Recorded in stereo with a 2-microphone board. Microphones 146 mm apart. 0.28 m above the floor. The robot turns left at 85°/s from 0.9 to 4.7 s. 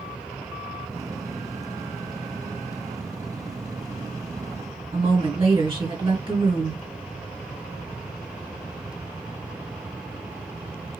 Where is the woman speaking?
35° right (ahead or behind), 2 m.